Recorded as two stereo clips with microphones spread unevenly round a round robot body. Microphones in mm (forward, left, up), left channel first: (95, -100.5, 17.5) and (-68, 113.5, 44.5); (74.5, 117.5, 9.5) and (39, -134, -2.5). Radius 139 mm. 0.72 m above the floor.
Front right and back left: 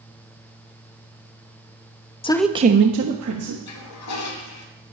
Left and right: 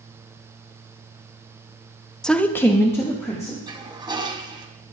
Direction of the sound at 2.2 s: 10° right.